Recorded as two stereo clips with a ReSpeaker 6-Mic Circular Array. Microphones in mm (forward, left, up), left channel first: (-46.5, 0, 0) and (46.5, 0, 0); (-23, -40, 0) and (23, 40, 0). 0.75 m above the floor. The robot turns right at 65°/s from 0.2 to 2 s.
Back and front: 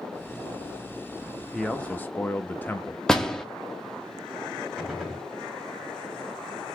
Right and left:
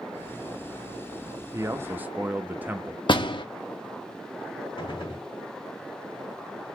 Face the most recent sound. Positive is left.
turn(degrees=-85)